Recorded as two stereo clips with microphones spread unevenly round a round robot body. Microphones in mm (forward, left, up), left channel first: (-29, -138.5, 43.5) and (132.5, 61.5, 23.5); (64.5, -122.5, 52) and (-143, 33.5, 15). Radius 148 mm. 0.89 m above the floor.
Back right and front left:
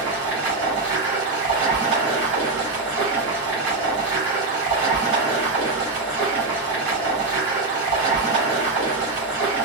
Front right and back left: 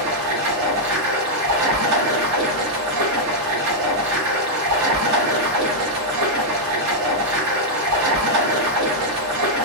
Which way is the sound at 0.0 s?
125° left.